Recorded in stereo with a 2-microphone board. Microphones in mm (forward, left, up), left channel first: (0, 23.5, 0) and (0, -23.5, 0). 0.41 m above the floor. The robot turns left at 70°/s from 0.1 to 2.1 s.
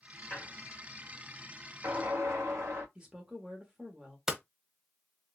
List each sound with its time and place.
0.3 s a squeak: 20° left (ahead or behind), 1.8 m; by 2.9 s 70° right (ahead or behind), 1.8 m
3.0 s a woman speaking: 20° right (ahead or behind), 1.0 m
4.3 s hammering: 10° right (ahead or behind), 1.0 m